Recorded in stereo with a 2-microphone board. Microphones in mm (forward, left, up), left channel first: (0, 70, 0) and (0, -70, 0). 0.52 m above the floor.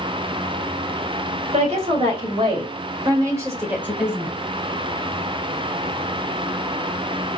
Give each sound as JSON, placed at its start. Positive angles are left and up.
{"t": 1.5, "sound": "a woman speaking", "side_deg": -50, "distance_m": 2.5}